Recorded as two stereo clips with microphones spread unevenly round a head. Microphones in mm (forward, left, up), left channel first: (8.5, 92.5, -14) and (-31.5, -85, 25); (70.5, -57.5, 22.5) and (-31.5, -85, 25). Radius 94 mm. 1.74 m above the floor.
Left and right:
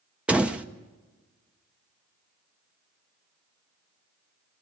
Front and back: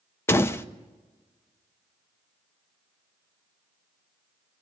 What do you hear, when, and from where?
0.3 s a door slam: 40° right, 0.8 m